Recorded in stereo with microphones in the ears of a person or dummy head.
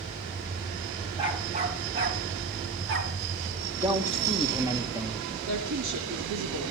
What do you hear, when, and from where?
1.2 s a dog barking: 30° right (ahead or behind), 3.5 m; by 3.1 s 65° right (ahead or behind), 4.5 m
3.8 s a man speaking: 15° right (ahead or behind), 3 m
5.5 s a woman speaking: 80° right, 3 m